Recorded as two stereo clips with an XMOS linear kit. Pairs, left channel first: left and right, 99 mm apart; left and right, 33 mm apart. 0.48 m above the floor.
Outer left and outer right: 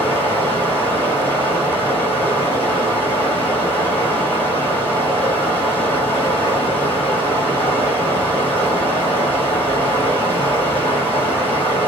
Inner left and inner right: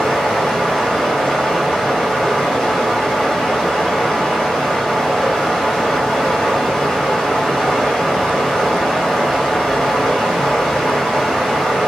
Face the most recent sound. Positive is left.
turn(degrees=20)  # may be behind; listen again after turning